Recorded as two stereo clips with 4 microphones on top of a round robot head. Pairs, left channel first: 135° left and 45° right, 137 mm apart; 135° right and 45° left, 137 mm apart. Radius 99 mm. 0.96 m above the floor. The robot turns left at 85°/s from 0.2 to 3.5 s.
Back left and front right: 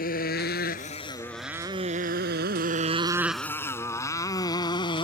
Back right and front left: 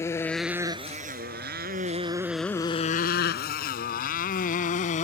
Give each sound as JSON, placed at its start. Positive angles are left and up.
{"t": 0.0, "sound": "a motorcycle", "azimuth_deg": 155}